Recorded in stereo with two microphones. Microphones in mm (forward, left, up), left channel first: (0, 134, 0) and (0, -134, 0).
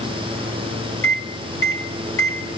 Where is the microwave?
55° left (ahead or behind), 2.5 m.